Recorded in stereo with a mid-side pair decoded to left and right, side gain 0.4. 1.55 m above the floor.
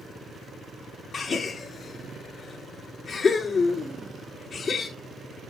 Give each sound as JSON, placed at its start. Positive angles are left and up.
{"t": 1.1, "sound": "a gasp", "azimuth_deg": 50, "distance_m": 4.0}